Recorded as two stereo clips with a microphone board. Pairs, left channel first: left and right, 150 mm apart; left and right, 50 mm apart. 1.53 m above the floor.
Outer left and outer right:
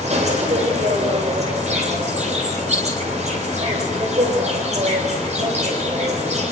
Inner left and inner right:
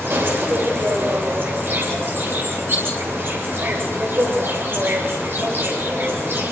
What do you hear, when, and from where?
0.0 s an insect: 50° right (ahead or behind), 8 m